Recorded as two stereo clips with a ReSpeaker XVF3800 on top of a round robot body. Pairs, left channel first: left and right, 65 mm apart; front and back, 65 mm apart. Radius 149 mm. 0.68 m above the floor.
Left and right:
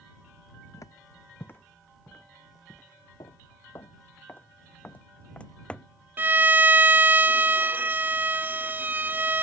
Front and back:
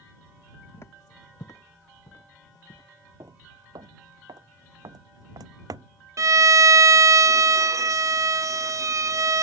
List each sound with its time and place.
0.7 s footsteps: 55° left; by 2.9 s 10° left
3.2 s footsteps: 130° left; by 5.9 s 165° left
6.2 s a violin: 150° right